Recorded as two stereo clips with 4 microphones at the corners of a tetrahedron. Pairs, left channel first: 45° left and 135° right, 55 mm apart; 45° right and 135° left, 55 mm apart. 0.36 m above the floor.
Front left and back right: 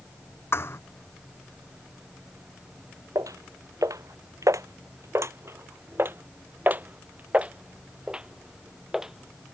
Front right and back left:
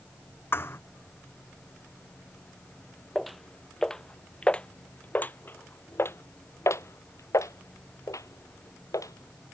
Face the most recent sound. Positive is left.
turn(degrees=-50)